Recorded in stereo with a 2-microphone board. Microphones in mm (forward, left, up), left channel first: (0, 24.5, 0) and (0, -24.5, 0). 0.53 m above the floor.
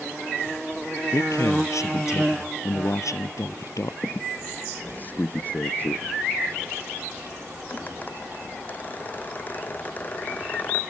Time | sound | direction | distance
1.1 | a man speaking | 80° left | ?
4.0 | a squeak | 35° left (ahead or behind) | ?